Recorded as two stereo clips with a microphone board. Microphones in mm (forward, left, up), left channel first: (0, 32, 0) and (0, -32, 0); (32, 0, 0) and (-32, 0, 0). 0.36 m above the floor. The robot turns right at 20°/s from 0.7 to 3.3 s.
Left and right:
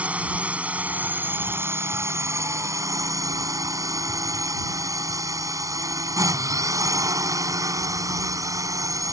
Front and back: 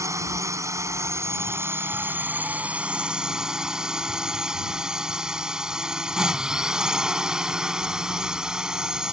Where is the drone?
155° right; by 9.1 s 105° right.